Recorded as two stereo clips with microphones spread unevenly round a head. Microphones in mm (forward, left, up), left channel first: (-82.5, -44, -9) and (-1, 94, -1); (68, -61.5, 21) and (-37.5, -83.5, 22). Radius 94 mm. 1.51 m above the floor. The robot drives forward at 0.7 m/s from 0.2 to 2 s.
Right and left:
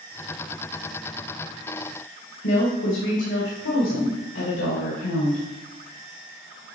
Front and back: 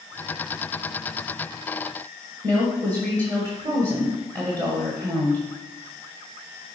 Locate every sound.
2.4 s a woman speaking: 115° right, 1.6 m